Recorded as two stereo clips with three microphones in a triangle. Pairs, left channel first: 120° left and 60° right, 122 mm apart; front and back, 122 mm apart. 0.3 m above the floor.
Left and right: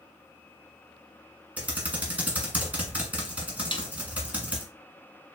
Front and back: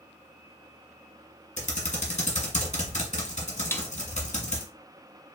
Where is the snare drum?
75° left, 0.6 m.